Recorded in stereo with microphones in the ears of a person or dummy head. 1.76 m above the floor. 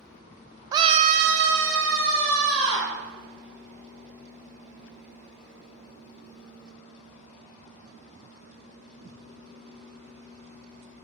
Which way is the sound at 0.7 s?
20° right (ahead or behind).